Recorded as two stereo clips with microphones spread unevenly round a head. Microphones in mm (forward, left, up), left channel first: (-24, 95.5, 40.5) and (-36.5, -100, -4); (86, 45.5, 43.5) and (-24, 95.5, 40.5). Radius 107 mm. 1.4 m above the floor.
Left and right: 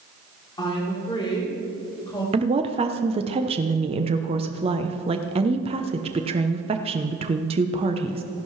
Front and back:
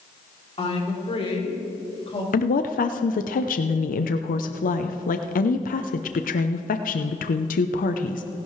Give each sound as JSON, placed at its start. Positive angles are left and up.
{"t": 0.6, "sound": "a woman speaking", "azimuth_deg": 15, "distance_m": 3.5}
{"t": 2.3, "sound": "a woman speaking", "azimuth_deg": -30, "distance_m": 0.7}